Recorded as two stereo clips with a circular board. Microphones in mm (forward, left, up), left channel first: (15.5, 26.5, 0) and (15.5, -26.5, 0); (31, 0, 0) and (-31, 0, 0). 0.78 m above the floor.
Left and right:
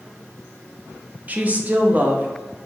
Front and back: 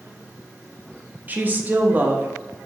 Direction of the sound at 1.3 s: 130° right.